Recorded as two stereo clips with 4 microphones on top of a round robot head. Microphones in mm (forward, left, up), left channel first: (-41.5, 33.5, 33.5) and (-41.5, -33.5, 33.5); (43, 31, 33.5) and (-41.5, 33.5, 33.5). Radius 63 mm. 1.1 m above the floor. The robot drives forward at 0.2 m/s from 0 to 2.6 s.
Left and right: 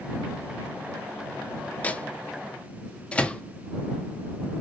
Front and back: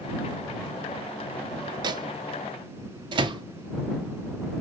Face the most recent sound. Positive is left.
turn(degrees=160)